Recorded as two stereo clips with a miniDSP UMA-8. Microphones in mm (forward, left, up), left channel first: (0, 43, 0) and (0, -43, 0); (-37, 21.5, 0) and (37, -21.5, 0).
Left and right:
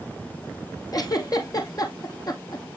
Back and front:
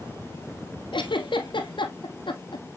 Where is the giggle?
130° left, 2 m.